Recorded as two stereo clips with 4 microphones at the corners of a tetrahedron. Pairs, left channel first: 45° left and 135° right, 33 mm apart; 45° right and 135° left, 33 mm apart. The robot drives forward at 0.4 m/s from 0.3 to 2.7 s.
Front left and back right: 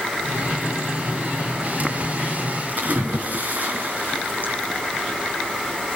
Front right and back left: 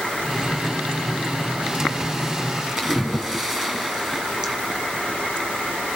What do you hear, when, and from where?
2.8 s a splash: 155° right, 2.5 m